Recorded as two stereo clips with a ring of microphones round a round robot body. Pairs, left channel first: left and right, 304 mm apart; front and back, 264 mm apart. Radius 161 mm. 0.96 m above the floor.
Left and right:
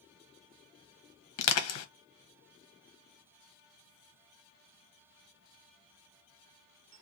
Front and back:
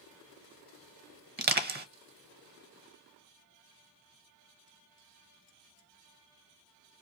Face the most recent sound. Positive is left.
turn(degrees=125)